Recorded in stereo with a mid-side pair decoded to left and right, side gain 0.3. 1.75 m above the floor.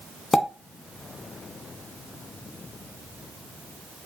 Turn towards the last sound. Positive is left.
turn(degrees=35)